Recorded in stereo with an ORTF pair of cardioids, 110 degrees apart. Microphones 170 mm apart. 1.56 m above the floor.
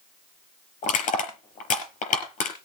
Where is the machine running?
No machine running in this recording.